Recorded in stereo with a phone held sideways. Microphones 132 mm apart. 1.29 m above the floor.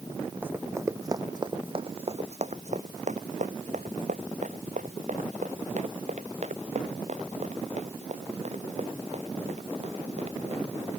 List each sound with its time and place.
0.4 s running footsteps: 15° right (ahead or behind); by 10.9 s 55° right (ahead or behind)